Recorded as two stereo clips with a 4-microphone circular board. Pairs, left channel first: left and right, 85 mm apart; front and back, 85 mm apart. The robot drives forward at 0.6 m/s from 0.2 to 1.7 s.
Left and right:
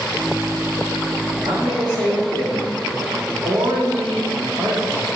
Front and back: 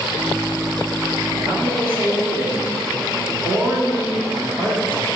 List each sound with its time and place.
1.4 s a man speaking: 110° right, 2.5 m; by 5.1 s 115° right, 2.5 m